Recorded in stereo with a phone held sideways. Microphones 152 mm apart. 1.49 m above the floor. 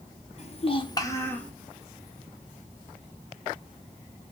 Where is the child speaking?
45° left (ahead or behind), 0.5 m; by 1.5 s 10° left (ahead or behind), 0.9 m.